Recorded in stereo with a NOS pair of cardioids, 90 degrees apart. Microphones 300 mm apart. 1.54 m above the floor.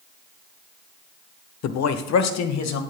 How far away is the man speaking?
About 1.1 m.